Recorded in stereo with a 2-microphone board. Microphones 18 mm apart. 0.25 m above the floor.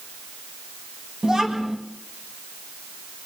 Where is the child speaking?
30° right (ahead or behind), 1.6 m.